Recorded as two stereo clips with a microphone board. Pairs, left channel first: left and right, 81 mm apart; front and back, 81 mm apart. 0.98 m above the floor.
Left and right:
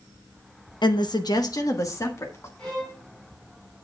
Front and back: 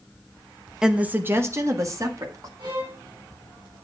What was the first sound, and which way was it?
A woman speaking, 100° left.